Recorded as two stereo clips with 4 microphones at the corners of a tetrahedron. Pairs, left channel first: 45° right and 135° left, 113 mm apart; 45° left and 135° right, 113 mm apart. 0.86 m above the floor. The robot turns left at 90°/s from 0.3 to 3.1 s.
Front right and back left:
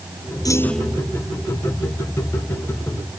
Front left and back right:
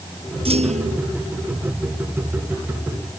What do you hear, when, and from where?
0.5 s a clunk: 100° right; by 1.1 s 155° right